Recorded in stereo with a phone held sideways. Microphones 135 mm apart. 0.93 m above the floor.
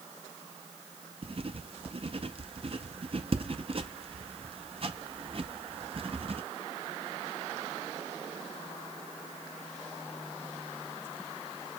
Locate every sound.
1.2 s writing: 50° right (ahead or behind), 0.6 m